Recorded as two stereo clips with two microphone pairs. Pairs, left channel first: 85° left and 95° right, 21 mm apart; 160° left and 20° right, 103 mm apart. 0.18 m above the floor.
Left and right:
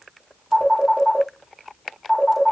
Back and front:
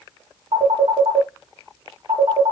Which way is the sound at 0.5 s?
Straight ahead.